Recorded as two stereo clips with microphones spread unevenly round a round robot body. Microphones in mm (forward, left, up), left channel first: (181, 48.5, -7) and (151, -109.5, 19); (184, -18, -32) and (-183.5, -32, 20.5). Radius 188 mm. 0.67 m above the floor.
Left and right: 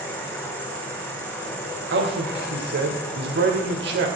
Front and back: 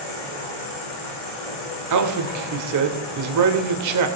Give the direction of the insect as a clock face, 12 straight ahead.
12 o'clock.